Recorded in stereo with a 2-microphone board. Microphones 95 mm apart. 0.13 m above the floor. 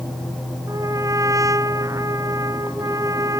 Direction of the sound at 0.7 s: 35° right (ahead or behind).